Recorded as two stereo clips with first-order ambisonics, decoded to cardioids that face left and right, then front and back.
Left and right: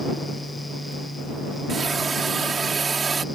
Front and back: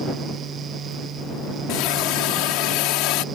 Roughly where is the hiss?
Ahead.